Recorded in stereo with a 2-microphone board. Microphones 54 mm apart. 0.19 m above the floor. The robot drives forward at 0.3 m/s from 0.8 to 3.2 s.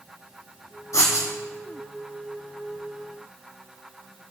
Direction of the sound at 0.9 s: 70° left (ahead or behind).